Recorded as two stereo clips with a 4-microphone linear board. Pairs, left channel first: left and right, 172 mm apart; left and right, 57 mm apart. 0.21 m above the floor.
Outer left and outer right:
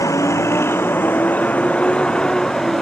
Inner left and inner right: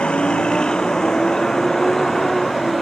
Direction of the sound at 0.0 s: 15° left (ahead or behind).